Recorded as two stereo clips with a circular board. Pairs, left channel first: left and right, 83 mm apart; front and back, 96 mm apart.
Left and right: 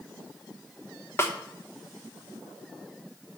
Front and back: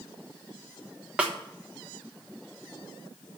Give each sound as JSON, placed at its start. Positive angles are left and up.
{"t": 1.2, "sound": "a snare drum", "azimuth_deg": 115, "distance_m": 0.9}